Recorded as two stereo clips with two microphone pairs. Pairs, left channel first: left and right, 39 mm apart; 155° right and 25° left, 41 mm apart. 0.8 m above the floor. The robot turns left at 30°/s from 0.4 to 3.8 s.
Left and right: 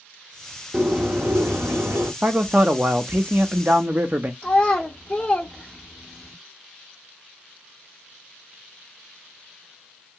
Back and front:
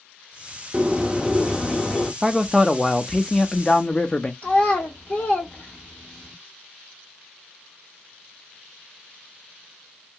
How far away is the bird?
About 0.7 m.